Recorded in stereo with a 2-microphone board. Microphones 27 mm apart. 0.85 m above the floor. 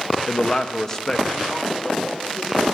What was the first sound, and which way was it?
A man speaking, 35° left (ahead or behind).